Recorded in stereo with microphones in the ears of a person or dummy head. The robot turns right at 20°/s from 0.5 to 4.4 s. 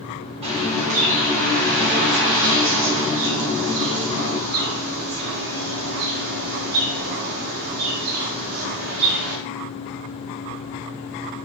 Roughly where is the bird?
Behind right.